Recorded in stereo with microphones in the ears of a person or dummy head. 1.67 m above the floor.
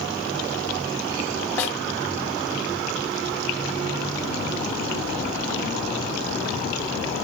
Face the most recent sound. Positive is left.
turn(degrees=15)  # may be behind; listen again after turning